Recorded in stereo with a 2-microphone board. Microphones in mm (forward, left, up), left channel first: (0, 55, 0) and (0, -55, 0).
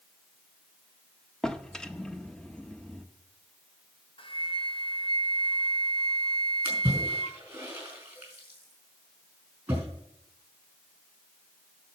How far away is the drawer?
About 0.7 m.